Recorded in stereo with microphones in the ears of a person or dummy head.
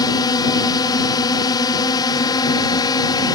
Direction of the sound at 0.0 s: 25° left (ahead or behind).